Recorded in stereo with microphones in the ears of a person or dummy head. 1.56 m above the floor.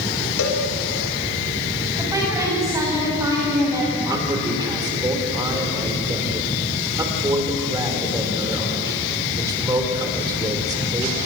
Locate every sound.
0.4 s a cowbell: 80° left, 3 m
2.0 s a woman speaking: 15° right (ahead or behind), 9.5 m
4.0 s a man speaking: 20° right (ahead or behind), 4.5 m